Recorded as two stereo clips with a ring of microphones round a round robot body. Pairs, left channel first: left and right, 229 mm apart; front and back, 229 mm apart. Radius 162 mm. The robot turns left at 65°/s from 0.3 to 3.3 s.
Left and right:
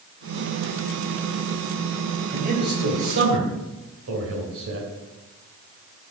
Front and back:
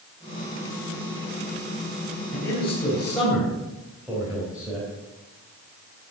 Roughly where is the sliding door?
No sliding door in this recording.